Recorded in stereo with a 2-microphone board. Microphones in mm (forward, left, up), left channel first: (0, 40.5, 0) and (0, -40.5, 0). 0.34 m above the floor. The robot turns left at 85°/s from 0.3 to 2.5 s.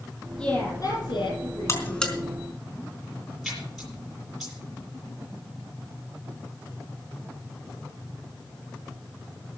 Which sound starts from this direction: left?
A buzzer, at 1.7 s.